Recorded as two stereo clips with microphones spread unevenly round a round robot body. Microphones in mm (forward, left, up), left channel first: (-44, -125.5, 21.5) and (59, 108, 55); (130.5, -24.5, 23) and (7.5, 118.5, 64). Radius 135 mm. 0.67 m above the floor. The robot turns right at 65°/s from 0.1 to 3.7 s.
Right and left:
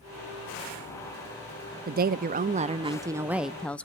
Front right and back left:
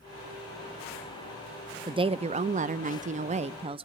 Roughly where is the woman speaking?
Ahead left.